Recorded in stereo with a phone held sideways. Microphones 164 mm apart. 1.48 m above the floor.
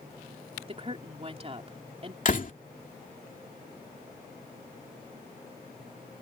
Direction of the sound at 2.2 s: 55° left (ahead or behind).